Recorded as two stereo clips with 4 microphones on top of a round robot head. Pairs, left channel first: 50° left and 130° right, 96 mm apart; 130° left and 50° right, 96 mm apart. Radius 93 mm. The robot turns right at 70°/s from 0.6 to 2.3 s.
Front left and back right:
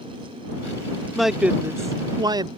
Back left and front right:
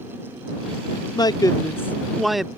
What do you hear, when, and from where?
1.1 s a man speaking: 140° left; by 2.5 s 140° right